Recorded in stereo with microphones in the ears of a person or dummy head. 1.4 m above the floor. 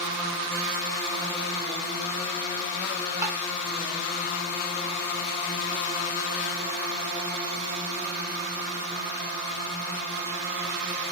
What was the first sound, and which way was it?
Tapping, 15° right (ahead or behind).